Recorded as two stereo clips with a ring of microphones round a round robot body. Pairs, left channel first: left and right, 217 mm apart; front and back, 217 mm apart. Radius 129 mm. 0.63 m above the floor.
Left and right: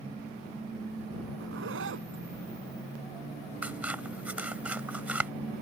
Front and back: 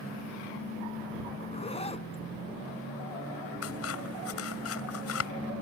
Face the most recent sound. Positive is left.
turn(degrees=-5)